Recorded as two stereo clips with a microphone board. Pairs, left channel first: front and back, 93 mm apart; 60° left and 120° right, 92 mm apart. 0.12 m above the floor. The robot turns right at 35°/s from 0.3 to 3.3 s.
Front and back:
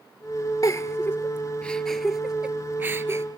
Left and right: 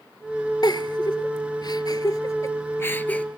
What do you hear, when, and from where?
0.6 s a giggle: 40° left, 0.9 m; by 3.2 s 130° left, 0.9 m